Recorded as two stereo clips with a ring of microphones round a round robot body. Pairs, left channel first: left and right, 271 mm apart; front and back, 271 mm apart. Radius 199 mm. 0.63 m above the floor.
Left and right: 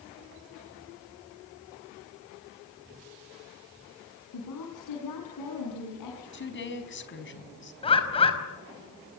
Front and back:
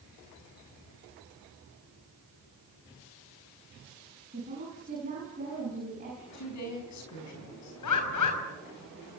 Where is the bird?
20° left, 5 m.